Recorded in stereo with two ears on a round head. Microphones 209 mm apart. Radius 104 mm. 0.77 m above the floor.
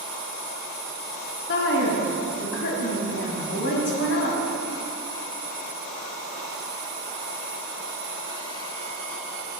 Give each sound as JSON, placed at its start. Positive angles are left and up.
{"t": 1.5, "sound": "a woman speaking", "side_deg": 50, "distance_m": 1.4}